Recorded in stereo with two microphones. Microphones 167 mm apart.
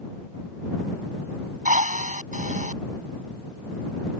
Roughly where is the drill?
Right.